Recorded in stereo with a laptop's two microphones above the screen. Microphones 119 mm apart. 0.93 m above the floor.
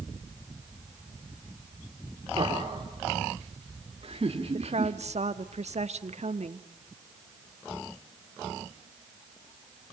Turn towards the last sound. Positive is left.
turn(degrees=-65)  # may be behind; listen again after turning